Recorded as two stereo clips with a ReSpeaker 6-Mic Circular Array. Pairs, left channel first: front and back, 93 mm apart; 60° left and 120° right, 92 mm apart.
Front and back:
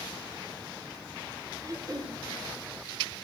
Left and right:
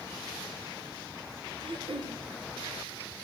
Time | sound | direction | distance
1.6 | throat clearing | 130° right | 1.5 m